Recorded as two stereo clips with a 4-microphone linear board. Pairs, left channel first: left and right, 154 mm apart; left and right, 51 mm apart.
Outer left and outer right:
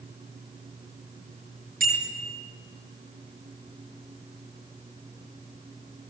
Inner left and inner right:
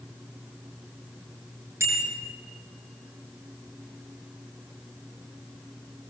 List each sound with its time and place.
1.8 s a bicycle bell: 75° right (ahead or behind), 8.5 m